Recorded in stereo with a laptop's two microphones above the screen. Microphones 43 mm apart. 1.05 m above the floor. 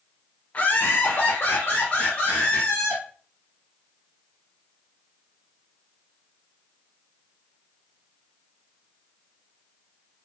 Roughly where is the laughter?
Left.